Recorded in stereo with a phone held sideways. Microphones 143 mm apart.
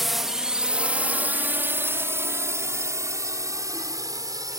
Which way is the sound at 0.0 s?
Centre (ahead or behind).